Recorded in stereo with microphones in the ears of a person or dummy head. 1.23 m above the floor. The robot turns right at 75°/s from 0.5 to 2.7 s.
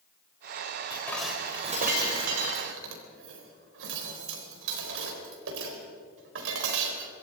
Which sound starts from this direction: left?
Dishes clattering, at 0.9 s.